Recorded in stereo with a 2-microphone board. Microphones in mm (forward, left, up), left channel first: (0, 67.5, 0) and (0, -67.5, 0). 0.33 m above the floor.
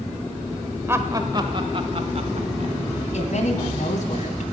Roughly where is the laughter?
Centre.